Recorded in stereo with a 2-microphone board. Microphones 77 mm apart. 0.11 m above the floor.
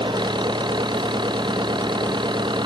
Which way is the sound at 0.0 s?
85° right.